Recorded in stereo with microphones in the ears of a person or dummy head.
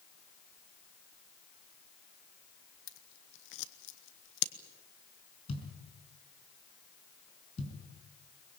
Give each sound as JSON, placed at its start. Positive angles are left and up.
{"t": 2.9, "sound": "scissors", "side_deg": 70, "distance_m": 1.0}
{"t": 5.5, "sound": "a thud", "side_deg": 30, "distance_m": 5.0}